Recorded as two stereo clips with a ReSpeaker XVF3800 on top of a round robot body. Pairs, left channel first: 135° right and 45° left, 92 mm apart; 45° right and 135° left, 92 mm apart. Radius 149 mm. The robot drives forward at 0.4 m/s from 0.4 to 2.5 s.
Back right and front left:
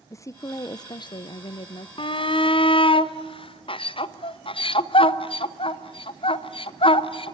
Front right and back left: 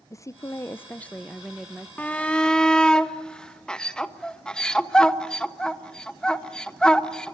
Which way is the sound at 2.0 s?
120° right.